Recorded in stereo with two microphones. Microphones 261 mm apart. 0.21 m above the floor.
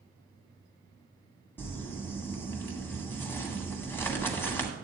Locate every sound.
1.6 s crumpling: 10° left (ahead or behind), 1.6 m